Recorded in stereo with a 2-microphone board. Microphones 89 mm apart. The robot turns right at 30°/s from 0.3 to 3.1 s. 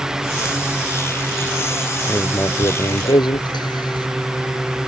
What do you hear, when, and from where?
2.1 s writing: 25° left; by 4.1 s 55° left